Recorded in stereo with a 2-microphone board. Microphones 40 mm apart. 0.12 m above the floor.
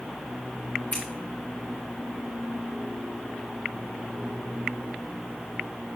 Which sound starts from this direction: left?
Scissors, at 0.9 s.